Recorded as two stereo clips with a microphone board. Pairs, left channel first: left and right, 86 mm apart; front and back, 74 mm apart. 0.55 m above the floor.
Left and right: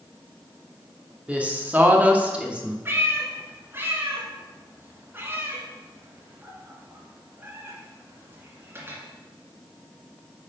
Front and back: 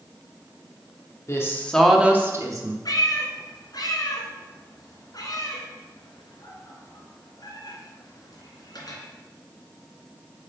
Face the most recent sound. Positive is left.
turn(degrees=-25)